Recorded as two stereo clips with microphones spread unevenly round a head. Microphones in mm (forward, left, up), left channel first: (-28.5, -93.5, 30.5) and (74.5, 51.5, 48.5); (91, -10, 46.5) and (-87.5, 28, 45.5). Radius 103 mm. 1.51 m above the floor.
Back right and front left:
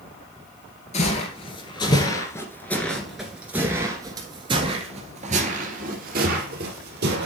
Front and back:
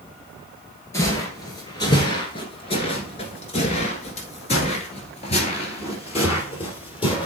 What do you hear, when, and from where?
0.9 s footsteps: 80° right, 1.9 m; by 7.3 s 50° left, 2.5 m